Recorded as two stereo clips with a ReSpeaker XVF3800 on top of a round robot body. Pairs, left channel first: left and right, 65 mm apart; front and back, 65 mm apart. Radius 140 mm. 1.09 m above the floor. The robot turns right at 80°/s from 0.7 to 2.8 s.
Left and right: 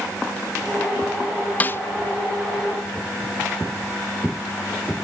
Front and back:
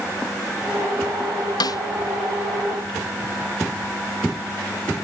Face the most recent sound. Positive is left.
turn(degrees=120)